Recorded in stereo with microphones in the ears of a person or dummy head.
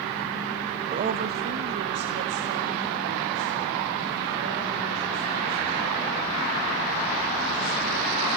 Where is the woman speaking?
30° right (ahead or behind), 0.8 m; by 8.3 s 65° right (ahead or behind), 11 m.